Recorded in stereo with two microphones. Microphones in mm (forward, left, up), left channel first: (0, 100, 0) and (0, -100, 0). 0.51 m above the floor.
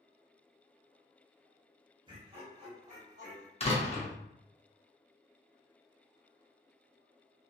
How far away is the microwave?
No microwave in this recording.